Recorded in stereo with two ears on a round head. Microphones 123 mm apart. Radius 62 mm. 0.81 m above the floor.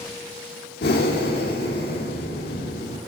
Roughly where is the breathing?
Left.